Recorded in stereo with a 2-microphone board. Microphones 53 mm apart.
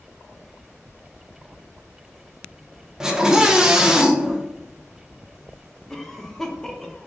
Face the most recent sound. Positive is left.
turn(degrees=5)  # may be behind; listen again after turning